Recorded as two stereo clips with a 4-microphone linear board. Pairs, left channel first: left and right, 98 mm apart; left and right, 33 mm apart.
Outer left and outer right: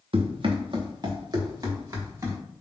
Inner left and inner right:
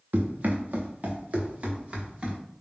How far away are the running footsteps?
About 1.0 m.